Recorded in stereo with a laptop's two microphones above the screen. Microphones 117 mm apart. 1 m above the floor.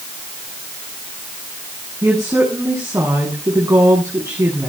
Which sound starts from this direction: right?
A woman speaking, at 2.0 s.